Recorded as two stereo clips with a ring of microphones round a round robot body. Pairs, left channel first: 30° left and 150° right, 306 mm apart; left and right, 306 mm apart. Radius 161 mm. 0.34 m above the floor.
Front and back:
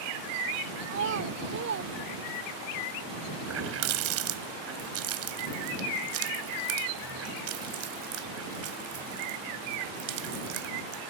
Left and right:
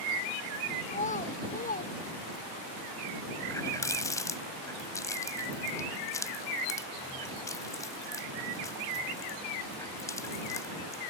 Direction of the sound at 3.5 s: 170° left.